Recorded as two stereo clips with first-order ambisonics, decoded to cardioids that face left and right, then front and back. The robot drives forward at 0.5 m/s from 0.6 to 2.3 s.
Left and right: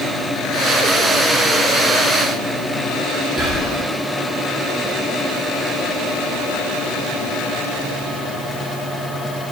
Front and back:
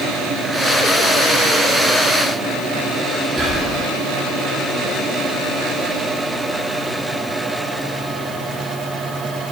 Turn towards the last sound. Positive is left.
turn(degrees=-165)